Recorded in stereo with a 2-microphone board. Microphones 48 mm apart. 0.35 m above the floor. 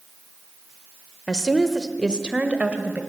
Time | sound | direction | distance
1.3 | a woman speaking | 20° left (ahead or behind) | 1.2 m